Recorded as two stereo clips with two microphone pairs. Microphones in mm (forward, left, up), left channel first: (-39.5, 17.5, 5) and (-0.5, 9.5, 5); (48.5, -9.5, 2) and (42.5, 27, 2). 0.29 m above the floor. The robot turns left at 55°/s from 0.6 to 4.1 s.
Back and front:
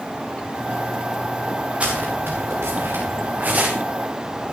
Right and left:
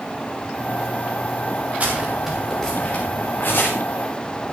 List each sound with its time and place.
1.8 s footsteps: 50° left, 7 m; by 3.7 s 75° right, 7.5 m